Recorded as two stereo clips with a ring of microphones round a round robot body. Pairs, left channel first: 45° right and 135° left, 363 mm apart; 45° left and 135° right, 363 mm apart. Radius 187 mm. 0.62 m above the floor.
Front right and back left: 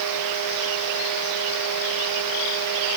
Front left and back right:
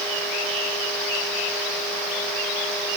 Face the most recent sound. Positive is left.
No sound to turn to.